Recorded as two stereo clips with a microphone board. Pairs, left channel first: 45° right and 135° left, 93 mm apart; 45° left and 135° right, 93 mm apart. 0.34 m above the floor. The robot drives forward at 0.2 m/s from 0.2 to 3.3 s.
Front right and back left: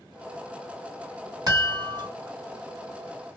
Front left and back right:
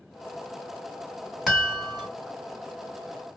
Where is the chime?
135° left, 2 m; by 2.1 s 140° left, 2 m.